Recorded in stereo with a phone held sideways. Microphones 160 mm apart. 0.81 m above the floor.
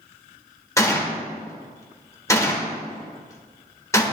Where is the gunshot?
20° left (ahead or behind), 1.0 m.